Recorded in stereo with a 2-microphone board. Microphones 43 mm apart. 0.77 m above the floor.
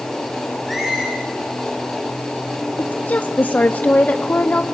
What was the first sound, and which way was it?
A squeak, 5° right (ahead or behind).